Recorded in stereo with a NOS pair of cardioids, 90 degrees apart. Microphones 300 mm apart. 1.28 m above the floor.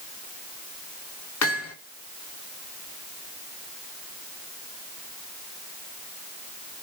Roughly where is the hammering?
Ahead left.